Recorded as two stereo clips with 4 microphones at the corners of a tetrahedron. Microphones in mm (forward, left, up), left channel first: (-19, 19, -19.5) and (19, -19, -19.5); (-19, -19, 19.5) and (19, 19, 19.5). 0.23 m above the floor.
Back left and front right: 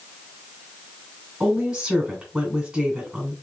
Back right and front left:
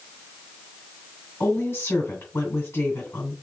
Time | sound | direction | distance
1.4 | a woman speaking | 120° right | 2.5 m